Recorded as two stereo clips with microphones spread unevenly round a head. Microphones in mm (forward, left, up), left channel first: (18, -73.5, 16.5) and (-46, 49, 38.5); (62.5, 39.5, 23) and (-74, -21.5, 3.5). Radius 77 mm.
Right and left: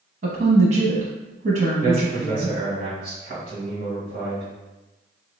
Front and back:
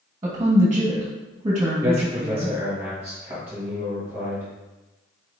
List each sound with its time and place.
0.2 s a woman speaking: 145° left, 1.2 m
1.8 s a man speaking: 135° left, 1.4 m